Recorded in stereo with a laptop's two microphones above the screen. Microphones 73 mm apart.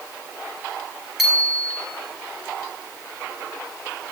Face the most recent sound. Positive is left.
turn(degrees=-5)  # may be behind; listen again after turning